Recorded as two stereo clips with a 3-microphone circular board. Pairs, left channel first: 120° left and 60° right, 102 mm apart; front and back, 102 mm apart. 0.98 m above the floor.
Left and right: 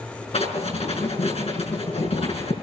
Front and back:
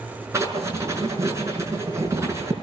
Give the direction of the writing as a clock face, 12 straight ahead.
8 o'clock.